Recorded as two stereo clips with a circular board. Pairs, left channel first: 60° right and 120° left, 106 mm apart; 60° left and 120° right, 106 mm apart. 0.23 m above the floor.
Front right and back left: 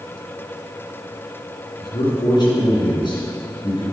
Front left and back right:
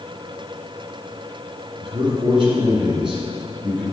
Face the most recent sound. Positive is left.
turn(degrees=-95)